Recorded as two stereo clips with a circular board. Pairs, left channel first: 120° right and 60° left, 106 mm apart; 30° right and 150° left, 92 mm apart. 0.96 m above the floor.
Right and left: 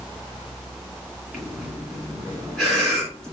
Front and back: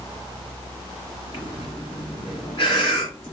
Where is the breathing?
35° right, 2 m.